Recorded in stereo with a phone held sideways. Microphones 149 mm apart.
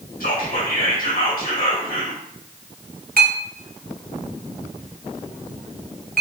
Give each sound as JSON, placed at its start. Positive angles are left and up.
{"t": 0.2, "sound": "whispering", "side_deg": 70, "distance_m": 2.5}
{"t": 3.2, "sound": "a clink", "side_deg": -70, "distance_m": 0.9}